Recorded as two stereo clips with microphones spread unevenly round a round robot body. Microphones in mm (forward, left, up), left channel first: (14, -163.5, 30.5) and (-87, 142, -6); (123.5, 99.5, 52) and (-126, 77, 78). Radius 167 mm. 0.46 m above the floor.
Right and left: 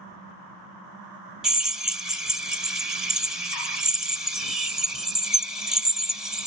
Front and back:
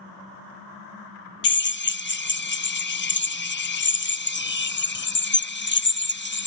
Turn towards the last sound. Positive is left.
turn(degrees=25)